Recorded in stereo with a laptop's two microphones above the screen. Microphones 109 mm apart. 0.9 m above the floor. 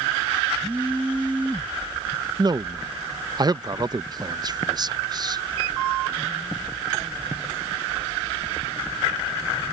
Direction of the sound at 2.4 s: 40° right (ahead or behind).